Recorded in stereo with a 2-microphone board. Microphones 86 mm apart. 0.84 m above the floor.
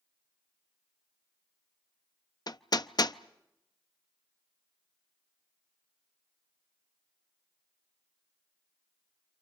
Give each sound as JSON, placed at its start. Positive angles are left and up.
{"t": 2.5, "sound": "hammering", "side_deg": 50, "distance_m": 0.6}